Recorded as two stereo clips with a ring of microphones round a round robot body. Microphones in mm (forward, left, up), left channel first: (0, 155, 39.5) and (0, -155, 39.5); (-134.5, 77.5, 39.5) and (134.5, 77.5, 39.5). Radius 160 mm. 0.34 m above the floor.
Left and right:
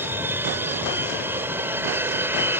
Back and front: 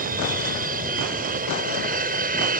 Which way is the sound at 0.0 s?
15° right.